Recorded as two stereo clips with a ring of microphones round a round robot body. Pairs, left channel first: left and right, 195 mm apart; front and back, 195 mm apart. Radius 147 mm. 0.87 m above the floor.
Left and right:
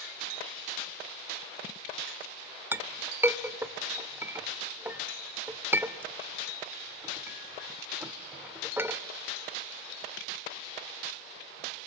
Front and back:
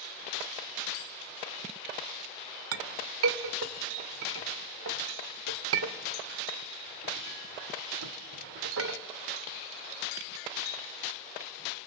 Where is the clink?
170° right, 1.5 m.